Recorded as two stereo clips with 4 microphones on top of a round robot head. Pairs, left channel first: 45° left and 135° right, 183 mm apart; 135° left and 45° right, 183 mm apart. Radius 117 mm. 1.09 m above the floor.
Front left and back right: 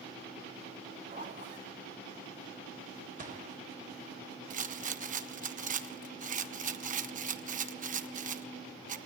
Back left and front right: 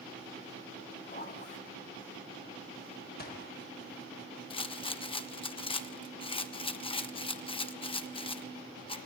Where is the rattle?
170° right, 1.2 m.